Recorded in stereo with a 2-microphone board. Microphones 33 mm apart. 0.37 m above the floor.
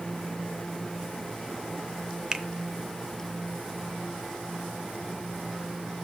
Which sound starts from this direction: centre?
A finger snap, at 2.3 s.